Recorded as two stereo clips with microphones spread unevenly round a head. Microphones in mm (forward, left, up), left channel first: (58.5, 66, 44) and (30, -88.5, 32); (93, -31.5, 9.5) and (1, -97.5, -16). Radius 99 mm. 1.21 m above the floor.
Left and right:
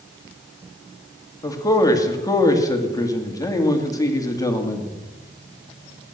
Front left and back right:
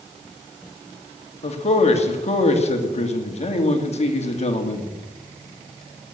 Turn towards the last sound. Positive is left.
turn(degrees=10)